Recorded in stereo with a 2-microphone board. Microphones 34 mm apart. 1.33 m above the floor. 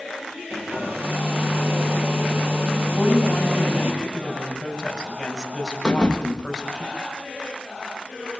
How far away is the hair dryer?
About 7 m.